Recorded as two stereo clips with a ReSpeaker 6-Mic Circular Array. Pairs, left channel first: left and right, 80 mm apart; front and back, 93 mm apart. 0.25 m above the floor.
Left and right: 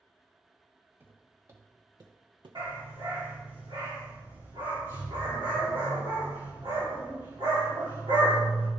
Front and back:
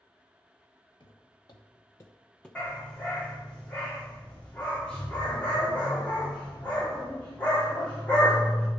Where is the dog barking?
75° right, 3.5 m.